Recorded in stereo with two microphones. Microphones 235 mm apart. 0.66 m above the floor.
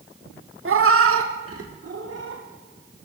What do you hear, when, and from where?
0.7 s a cat meowing: 60° right (ahead or behind), 0.5 m; by 2.4 s 80° right, 1.5 m